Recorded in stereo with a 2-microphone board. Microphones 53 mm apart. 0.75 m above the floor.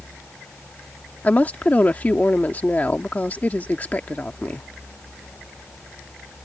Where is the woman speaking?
30° left (ahead or behind).